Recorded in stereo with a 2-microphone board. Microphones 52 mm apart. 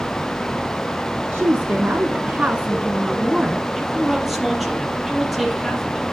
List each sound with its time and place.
1.3 s a woman speaking: 35° right (ahead or behind), 1.8 m; by 3.6 s centre (ahead or behind), 1.4 m
3.8 s a man speaking: centre (ahead or behind), 4 m